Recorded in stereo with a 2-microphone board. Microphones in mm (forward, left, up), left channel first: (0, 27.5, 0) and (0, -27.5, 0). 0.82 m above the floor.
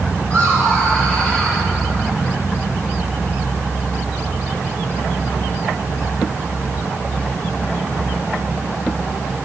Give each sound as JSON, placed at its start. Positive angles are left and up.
{"t": 0.3, "sound": "laughter", "side_deg": 30, "distance_m": 3.0}